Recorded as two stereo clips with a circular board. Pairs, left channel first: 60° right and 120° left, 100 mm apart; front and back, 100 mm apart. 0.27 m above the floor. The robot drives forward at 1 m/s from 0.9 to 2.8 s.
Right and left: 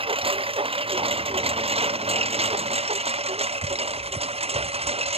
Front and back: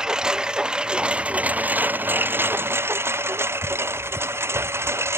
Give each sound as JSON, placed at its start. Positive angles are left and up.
{"t": 0.0, "sound": "a lawn mower", "azimuth_deg": 95}